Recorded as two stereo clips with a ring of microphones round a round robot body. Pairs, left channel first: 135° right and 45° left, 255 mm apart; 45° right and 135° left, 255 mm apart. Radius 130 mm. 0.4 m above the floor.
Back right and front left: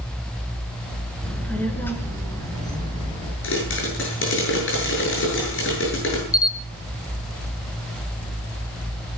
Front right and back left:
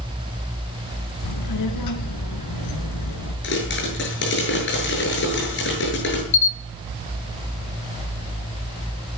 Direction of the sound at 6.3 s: 60° right.